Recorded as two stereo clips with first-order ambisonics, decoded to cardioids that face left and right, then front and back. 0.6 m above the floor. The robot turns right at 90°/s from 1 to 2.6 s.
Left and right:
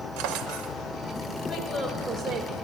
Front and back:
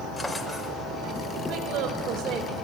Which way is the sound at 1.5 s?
160° left.